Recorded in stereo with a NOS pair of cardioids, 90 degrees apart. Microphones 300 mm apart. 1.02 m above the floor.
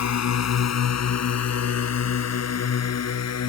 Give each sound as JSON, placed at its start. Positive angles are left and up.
{"t": 0.0, "sound": "a drone", "azimuth_deg": 60}